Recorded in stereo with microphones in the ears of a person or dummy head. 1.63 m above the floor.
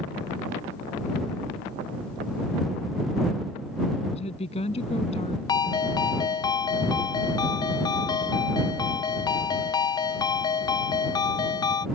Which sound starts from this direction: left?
A woman speaking, at 4.1 s.